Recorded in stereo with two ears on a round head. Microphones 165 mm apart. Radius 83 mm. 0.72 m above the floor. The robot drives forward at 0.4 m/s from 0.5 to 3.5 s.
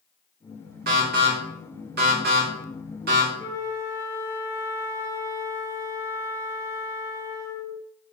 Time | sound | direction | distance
0.9 | an alarm | 55° right (ahead or behind) | 2.5 m
3.4 | a flute | 15° right (ahead or behind) | 1.9 m